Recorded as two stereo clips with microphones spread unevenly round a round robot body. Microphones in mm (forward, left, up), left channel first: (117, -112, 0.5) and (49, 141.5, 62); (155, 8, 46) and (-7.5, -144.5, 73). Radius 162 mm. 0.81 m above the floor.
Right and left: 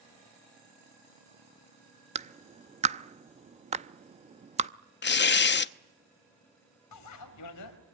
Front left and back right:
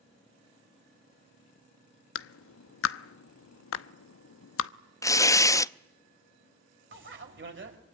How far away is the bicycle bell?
About 3.5 m.